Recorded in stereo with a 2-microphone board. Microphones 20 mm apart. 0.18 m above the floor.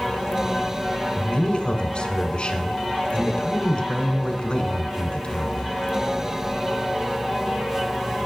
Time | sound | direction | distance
1.2 | a man speaking | 45° left (ahead or behind) | 1.5 m